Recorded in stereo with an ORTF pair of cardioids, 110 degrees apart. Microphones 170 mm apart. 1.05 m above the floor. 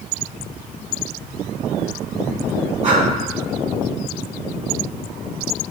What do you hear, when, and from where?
2.8 s breathing: 50° right, 3 m